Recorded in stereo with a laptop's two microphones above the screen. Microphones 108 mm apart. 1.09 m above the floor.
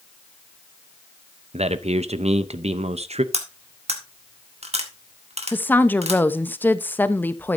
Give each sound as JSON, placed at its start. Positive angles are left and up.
{"t": 1.5, "sound": "a man speaking", "side_deg": -80, "distance_m": 0.7}
{"t": 3.3, "sound": "cutlery clinking", "side_deg": -80, "distance_m": 1.6}
{"t": 5.5, "sound": "a woman speaking", "side_deg": 15, "distance_m": 0.8}